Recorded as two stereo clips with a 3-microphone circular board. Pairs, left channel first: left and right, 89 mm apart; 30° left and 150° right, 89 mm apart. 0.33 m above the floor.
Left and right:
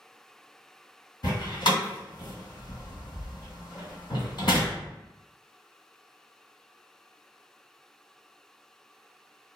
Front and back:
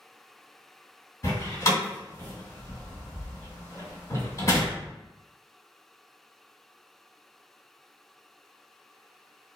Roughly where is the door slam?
Left.